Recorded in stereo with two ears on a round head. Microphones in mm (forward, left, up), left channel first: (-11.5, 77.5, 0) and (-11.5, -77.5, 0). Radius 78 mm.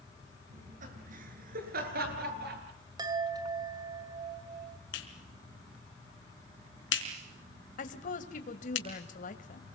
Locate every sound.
0.5 s laughter: 45° right (ahead or behind), 8 m; by 2.6 s 65° right (ahead or behind), 9 m
3.0 s a chime: 25° right (ahead or behind), 2.5 m
4.9 s a clap: 80° left, 4.5 m
7.8 s a woman speaking: 50° left (ahead or behind), 2.5 m